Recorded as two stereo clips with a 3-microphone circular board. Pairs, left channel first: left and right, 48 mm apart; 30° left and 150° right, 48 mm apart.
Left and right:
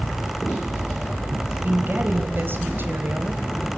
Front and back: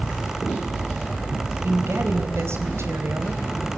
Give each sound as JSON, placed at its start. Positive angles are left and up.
{"t": 1.6, "sound": "a woman speaking", "azimuth_deg": -130, "distance_m": 4.0}